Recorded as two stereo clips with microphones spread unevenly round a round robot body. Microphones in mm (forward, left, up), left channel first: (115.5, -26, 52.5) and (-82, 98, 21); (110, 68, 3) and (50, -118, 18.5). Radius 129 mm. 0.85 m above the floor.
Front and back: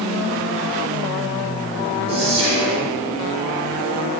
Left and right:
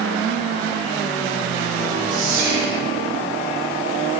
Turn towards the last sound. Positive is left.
turn(degrees=-155)